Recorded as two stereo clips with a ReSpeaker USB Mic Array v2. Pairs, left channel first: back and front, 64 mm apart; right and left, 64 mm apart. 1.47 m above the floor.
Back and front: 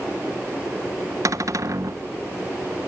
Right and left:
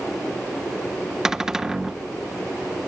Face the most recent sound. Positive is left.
turn(degrees=10)